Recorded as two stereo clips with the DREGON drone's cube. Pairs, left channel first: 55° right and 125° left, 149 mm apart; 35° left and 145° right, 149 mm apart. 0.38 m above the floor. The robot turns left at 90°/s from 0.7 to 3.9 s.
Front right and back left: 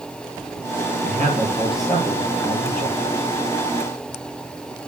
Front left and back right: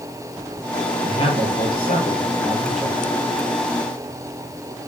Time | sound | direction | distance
1.0 | a man speaking | 105° left | 7.5 m